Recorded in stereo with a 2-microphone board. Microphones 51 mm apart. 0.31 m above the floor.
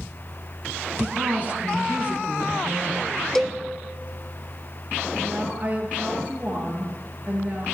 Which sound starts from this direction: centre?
A cowbell, at 3.4 s.